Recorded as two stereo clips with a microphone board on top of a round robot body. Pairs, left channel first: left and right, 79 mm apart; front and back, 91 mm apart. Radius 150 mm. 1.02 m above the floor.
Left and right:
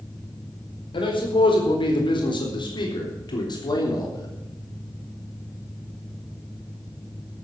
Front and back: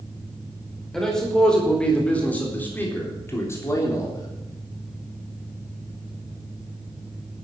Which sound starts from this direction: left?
A man speaking, at 0.9 s.